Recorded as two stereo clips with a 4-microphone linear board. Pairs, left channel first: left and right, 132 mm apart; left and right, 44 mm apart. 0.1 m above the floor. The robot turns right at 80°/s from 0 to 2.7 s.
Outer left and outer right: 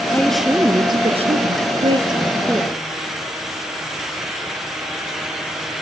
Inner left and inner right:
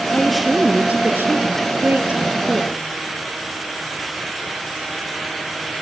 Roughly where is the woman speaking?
Behind.